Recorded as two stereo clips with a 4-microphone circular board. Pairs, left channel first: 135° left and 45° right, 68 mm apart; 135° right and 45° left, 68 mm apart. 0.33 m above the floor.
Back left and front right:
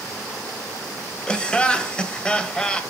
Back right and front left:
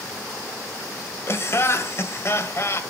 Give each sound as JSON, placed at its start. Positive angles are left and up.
{"t": 1.3, "sound": "laughter", "azimuth_deg": -155, "distance_m": 1.5}